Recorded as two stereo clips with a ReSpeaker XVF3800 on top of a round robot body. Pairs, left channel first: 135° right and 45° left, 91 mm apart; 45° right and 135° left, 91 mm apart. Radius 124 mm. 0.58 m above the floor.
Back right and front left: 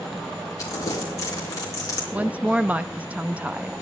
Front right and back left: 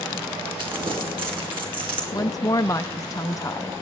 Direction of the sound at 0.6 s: 170° left.